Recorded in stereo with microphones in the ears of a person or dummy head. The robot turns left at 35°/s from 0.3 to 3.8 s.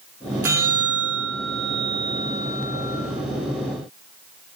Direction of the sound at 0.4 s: 160° right.